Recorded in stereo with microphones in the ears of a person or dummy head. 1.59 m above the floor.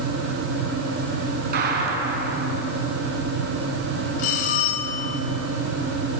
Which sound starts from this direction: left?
A bell, at 4.2 s.